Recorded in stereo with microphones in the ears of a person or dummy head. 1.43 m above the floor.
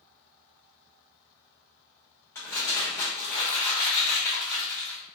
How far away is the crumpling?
About 1.5 m.